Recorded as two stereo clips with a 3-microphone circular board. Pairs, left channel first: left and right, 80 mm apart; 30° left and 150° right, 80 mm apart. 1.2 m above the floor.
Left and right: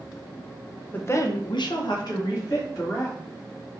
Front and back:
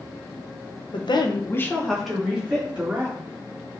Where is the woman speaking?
25° left, 0.8 m; by 3.2 s 140° left, 2.5 m.